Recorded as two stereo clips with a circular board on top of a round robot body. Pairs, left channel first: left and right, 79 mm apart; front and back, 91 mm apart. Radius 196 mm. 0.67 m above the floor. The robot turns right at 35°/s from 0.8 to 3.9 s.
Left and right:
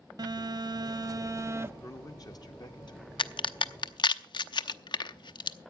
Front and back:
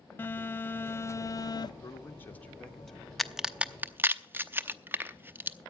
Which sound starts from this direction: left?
A crack, at 3.2 s.